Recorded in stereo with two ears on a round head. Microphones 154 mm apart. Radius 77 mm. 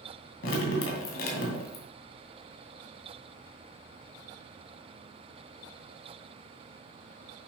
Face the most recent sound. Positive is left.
turn(degrees=85)